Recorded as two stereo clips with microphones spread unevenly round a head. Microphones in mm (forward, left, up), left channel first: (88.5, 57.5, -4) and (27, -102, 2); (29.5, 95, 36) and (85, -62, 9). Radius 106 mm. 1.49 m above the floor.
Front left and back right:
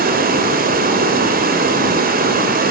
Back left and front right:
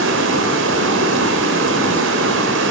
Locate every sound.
0.0 s running water: 80° right, 2.5 m